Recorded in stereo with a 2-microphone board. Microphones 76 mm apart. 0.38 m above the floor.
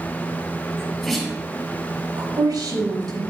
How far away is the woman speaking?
About 4 m.